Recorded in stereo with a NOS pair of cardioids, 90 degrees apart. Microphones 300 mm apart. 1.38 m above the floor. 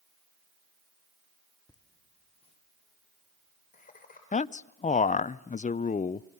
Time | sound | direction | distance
1.7 | laughter | 10° left | 2 m
4.3 | a man speaking | 25° left | 0.7 m